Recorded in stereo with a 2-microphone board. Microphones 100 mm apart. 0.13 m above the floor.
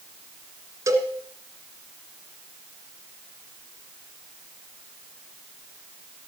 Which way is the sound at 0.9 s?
30° right (ahead or behind).